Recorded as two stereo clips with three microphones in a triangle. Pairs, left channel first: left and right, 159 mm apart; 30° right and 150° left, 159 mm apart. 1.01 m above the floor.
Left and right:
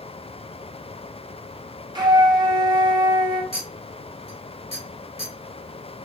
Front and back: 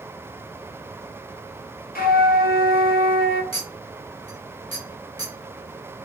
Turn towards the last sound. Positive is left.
turn(degrees=85)